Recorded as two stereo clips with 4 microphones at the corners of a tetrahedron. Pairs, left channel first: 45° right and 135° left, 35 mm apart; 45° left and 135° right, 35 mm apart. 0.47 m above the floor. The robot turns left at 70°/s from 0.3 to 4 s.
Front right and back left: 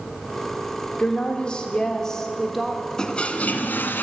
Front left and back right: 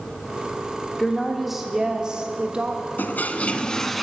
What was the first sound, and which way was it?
A woman speaking, 20° right.